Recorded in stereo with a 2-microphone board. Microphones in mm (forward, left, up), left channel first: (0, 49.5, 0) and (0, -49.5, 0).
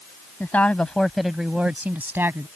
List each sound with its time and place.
0.4 s a woman speaking: 20° left (ahead or behind); by 2.5 s 25° right (ahead or behind)